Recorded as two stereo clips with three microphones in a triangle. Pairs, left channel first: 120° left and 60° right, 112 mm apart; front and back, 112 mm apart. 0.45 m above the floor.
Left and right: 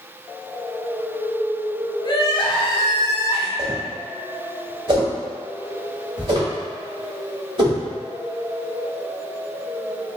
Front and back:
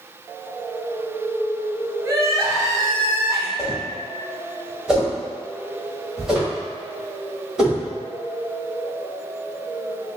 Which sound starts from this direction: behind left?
Crying, at 2.0 s.